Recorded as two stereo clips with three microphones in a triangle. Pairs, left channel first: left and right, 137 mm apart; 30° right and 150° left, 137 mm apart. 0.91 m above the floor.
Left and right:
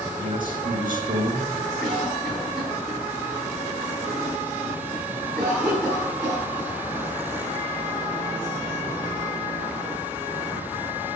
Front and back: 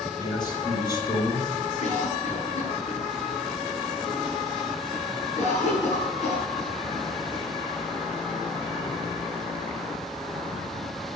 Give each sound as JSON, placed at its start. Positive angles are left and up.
{"t": 0.2, "sound": "a man speaking", "azimuth_deg": -85, "distance_m": 4.0}
{"t": 1.8, "sound": "a cough", "azimuth_deg": 0, "distance_m": 8.5}